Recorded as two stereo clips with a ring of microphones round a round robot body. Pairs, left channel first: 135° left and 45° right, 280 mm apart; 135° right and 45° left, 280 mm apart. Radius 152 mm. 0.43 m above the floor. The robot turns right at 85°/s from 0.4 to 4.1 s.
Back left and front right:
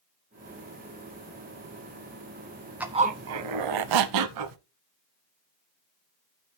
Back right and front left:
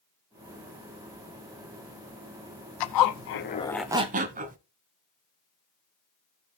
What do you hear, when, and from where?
2.8 s a zipper: 130° right, 0.7 m; by 4.6 s 20° right, 0.7 m